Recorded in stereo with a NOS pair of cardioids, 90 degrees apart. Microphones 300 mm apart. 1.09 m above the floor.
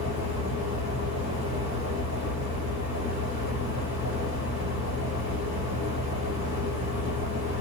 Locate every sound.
0.0 s a fan: 60° left, 2.5 m